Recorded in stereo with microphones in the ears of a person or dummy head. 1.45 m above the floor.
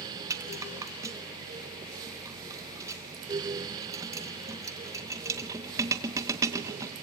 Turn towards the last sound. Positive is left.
turn(degrees=-20)  # may be behind; listen again after turning